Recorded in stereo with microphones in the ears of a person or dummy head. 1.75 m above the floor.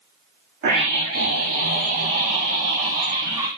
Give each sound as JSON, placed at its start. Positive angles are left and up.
{"t": 0.6, "sound": "a scream", "side_deg": -60, "distance_m": 3.0}